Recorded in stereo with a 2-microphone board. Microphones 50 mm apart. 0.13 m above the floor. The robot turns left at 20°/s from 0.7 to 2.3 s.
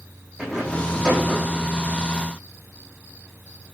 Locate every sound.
0.4 s a rattle: 10° left (ahead or behind), 4 m; by 1.7 s 5° right (ahead or behind), 4 m